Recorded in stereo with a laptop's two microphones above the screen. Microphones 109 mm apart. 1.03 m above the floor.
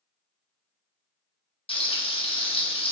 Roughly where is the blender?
No blender in this recording.